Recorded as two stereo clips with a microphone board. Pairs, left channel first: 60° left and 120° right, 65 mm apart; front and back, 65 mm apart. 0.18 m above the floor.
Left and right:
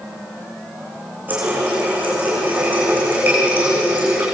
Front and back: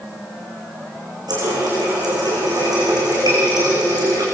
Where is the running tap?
175° left, 9.5 m.